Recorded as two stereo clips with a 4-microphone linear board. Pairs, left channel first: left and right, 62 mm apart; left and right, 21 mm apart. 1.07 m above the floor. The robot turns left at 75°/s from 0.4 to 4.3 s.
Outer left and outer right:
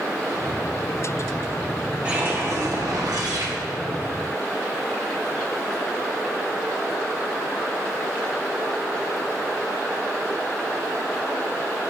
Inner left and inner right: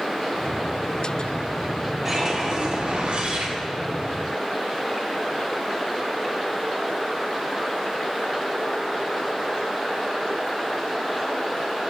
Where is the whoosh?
20° right, 1.0 m; by 3.5 s 130° right, 1.0 m.